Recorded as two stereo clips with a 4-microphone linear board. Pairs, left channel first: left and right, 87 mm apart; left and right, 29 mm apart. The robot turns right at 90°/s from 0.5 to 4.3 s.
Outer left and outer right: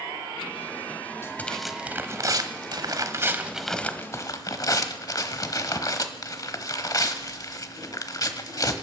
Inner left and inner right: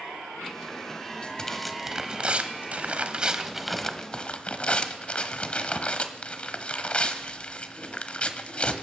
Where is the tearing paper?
140° left, 1.0 m; by 8.8 s 60° left, 1.0 m.